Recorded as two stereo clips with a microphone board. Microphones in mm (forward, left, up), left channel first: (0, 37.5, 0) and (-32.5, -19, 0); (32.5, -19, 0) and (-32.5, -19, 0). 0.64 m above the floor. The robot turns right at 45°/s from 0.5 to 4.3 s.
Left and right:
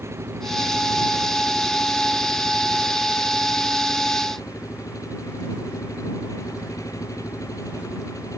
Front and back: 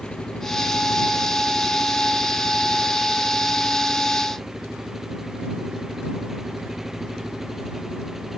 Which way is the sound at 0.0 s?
75° right.